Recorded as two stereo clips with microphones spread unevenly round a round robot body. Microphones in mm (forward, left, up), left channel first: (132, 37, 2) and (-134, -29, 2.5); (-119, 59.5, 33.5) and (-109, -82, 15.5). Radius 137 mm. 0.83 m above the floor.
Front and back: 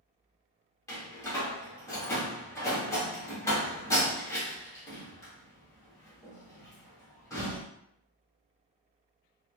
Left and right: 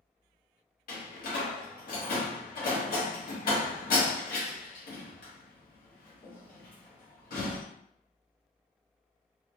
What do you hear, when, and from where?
0.9 s a door slam: 90° left, 0.9 m